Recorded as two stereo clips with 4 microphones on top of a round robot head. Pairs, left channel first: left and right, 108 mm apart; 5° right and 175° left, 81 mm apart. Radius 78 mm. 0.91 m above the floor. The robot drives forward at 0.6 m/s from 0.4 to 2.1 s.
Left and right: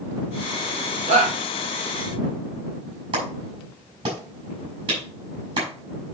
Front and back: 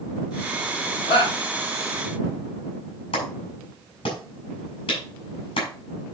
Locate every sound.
1.1 s a shout: 45° right, 3.5 m; by 1.4 s 50° right, 3.5 m
3.1 s a clap: 40° right, 4.5 m